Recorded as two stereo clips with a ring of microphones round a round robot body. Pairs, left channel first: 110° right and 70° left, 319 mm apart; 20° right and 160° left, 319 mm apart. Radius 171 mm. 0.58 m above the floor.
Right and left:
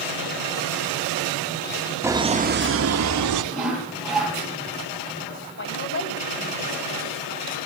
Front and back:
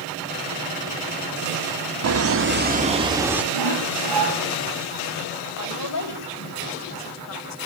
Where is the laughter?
150° left, 1.8 m; by 3.4 s 70° left, 2.5 m.